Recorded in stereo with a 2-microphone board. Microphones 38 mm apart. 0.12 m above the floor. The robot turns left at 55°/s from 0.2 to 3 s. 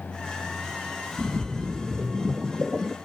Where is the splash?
45° right, 0.7 m; by 3.0 s 145° right, 0.7 m.